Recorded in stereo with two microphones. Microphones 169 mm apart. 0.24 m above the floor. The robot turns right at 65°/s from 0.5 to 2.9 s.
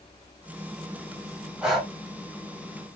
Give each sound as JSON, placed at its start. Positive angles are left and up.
{"t": 1.6, "sound": "breathing", "side_deg": -5, "distance_m": 1.4}